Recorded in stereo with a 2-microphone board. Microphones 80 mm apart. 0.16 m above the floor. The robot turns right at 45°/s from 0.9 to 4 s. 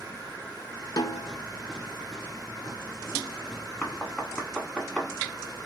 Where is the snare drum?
55° left (ahead or behind), 0.6 m; by 1.3 s 50° left (ahead or behind), 0.6 m.